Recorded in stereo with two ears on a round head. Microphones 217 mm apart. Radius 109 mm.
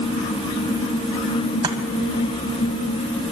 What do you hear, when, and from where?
1.6 s chopping: 20° right (ahead or behind), 1.9 m